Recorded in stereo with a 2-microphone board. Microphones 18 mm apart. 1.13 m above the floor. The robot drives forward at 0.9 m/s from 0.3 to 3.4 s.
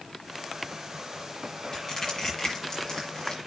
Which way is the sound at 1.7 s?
30° left (ahead or behind).